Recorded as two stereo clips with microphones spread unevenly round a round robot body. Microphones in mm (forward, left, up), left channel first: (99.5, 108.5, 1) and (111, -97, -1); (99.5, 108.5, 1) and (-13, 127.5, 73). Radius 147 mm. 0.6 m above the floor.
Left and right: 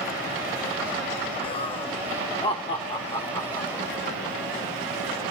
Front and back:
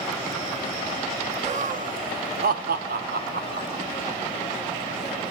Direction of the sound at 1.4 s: 125° left.